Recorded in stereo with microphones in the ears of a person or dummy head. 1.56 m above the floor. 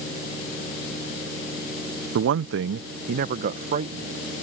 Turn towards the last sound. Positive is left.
turn(degrees=-30)  # may be behind; listen again after turning